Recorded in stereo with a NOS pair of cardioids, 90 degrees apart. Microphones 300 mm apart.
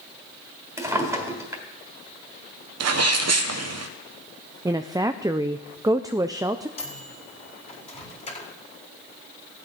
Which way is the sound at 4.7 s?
10° right.